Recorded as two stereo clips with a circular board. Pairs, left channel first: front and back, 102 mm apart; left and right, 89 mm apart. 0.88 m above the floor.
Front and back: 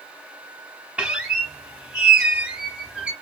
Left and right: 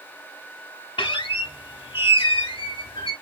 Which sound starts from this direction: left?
A squeak, at 1.0 s.